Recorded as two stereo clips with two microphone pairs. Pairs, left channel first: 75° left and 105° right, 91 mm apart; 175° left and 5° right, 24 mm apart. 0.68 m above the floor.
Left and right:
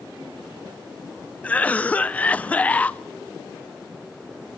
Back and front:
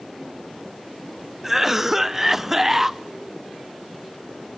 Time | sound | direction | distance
1.4 | a cough | 30° left | 0.5 m